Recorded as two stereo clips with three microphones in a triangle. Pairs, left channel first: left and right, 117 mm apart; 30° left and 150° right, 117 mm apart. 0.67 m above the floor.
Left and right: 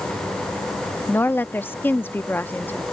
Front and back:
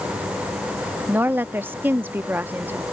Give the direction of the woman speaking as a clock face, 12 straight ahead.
7 o'clock.